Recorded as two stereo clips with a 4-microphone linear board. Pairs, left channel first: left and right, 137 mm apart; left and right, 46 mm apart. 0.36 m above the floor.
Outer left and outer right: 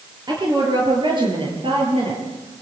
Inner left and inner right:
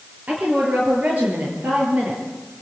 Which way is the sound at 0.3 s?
35° right (ahead or behind).